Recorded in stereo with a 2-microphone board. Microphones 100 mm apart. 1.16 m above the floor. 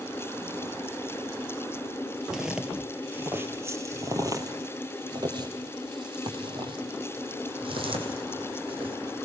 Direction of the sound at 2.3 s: 5° right (ahead or behind).